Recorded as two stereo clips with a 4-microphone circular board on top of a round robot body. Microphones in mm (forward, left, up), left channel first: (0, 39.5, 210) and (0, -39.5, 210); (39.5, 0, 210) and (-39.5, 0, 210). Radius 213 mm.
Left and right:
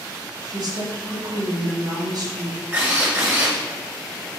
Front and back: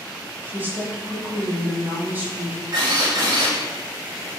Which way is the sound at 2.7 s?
155° right.